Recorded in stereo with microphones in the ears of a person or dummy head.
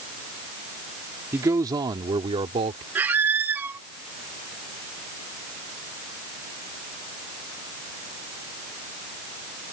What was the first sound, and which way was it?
A man speaking, 20° right (ahead or behind).